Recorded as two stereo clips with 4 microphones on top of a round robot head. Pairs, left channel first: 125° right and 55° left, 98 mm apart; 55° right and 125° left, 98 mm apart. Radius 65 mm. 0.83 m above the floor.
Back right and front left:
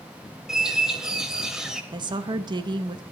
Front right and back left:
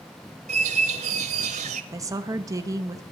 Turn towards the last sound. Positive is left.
turn(degrees=80)